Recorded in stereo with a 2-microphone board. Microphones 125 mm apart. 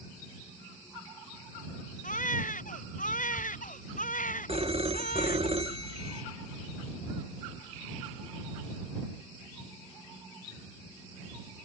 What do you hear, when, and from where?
2.0 s a baby crying: 80° left
4.5 s a phone ringing: 50° right (ahead or behind)